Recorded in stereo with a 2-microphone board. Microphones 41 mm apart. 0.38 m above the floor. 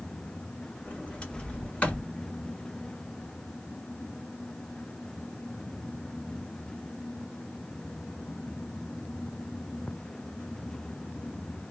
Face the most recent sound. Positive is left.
turn(degrees=30)  # may be behind; listen again after turning